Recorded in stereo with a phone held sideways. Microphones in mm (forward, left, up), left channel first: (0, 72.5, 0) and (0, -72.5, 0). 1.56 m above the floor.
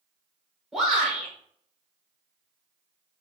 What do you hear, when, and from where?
0.7 s a shout: centre (ahead or behind), 4.5 m